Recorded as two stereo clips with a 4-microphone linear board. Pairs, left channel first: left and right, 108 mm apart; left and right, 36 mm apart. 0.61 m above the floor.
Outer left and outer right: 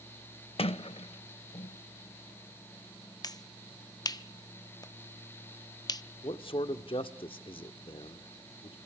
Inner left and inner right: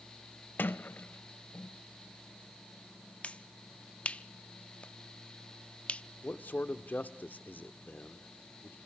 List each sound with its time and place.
0.6 s a sliding door: 60° left (ahead or behind), 0.6 m
3.2 s a finger snap: 35° left (ahead or behind), 0.7 m
6.2 s a man speaking: 55° left (ahead or behind), 1.1 m